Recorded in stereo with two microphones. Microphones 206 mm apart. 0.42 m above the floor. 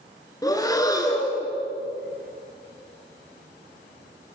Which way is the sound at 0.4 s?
20° left (ahead or behind).